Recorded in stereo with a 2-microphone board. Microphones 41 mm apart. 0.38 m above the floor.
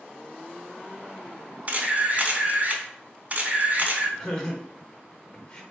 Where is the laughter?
20° left (ahead or behind), 1.0 m.